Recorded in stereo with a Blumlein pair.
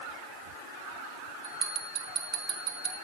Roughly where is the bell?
Ahead right.